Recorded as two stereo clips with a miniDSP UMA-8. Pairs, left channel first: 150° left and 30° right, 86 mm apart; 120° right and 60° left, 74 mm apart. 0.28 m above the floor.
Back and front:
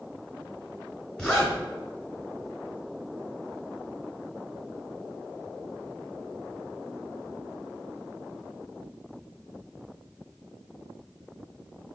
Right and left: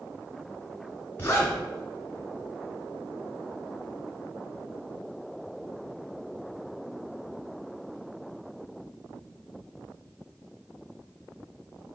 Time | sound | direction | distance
1.2 | a zipper | 130° right | 1.5 m